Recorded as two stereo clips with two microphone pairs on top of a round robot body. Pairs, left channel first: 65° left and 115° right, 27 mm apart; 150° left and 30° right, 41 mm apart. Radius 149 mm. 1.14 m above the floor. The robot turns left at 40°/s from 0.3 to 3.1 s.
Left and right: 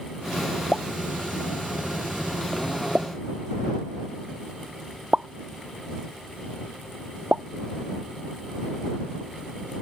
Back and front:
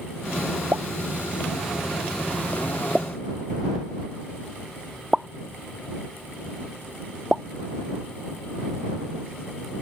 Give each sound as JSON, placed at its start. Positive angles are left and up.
{"t": 0.7, "sound": "a pop", "azimuth_deg": -25}